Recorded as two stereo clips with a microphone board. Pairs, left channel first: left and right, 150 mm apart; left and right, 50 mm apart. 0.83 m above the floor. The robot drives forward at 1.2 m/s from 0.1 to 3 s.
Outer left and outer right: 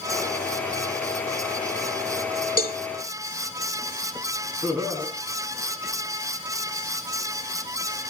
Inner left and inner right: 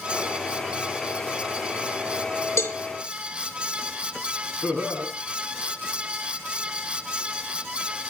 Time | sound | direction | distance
2.6 | a cowbell | 80° left | 1.8 m
4.6 | laughter | 15° right (ahead or behind) | 7 m